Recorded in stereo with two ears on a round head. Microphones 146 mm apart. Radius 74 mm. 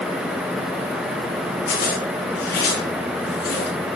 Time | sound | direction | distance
1.7 | a zipper | 70° left (ahead or behind) | 8.5 m